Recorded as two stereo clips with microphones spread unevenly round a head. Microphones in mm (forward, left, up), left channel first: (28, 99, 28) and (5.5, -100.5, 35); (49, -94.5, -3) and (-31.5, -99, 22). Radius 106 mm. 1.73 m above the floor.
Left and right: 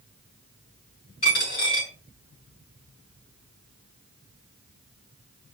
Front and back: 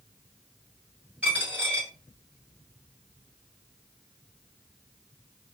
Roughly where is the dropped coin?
Behind left.